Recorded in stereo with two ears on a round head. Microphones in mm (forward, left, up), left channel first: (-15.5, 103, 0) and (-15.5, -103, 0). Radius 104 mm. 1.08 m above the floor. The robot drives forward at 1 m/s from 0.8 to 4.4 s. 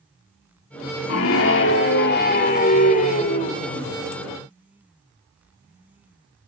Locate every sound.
1.1 s a scream: 70° left (ahead or behind), 2 m; by 4.0 s 30° left (ahead or behind), 4 m